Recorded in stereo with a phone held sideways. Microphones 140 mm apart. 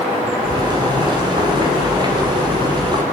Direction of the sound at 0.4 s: 35° right (ahead or behind).